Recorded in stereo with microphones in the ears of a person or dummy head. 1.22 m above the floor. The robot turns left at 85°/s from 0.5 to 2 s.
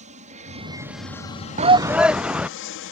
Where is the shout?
140° right; by 2.5 s 175° right.